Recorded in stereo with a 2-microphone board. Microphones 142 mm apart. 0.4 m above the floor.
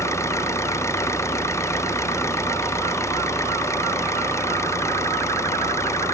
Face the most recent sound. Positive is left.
turn(degrees=20)  # may be behind; listen again after turning